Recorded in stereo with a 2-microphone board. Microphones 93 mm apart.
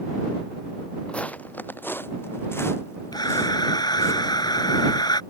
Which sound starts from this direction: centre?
Footsteps, at 1.1 s.